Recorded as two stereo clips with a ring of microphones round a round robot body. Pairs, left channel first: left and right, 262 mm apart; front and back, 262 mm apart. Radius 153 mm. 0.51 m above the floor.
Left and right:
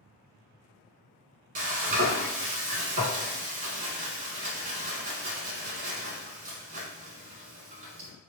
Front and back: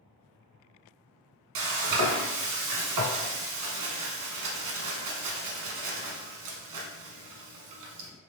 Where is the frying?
155° right, 0.8 m.